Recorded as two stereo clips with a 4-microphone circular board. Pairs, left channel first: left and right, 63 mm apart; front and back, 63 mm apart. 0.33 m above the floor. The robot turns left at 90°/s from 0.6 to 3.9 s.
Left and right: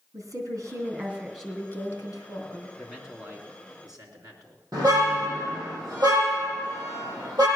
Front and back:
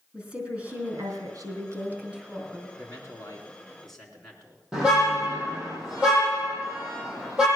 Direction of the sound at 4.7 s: 105° right.